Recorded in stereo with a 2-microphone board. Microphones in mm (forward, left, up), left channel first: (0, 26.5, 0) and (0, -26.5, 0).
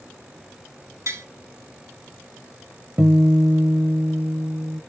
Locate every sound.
1.1 s tapping: 75° right (ahead or behind), 1.2 m
3.0 s a guitar: 35° right (ahead or behind), 0.5 m